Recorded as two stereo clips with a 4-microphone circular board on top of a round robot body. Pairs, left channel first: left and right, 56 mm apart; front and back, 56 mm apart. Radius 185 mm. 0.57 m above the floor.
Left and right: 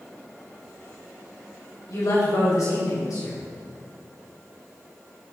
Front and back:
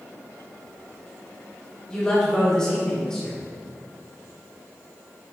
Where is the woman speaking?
80° left, 3.5 m.